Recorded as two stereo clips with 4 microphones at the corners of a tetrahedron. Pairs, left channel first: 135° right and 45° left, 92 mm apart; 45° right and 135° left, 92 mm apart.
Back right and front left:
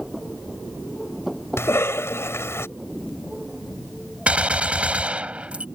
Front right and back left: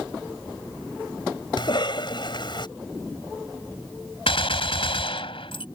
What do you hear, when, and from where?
1.6 s a cough: 75° right
4.3 s a gunshot: 35° right